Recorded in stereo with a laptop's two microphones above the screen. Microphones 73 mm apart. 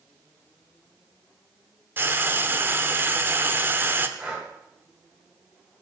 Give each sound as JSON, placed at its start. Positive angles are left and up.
{"t": 2.0, "sound": "frying", "side_deg": -30, "distance_m": 0.9}
{"t": 4.2, "sound": "breathing", "side_deg": -15, "distance_m": 2.0}